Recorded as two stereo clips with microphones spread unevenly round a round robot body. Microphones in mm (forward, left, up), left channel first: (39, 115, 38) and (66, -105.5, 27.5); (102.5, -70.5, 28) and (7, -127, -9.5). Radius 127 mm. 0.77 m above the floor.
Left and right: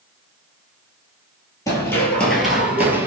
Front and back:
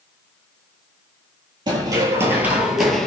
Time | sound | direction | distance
1.7 | running footsteps | 150° left | 0.8 m